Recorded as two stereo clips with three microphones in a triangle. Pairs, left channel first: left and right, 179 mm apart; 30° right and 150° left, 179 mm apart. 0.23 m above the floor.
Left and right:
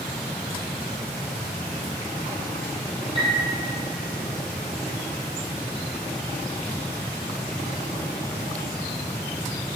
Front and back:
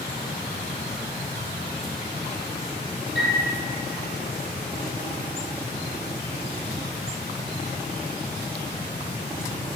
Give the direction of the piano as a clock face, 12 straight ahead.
1 o'clock.